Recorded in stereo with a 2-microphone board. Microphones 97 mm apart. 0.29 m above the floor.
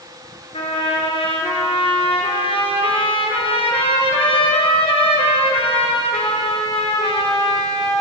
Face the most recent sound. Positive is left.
turn(degrees=80)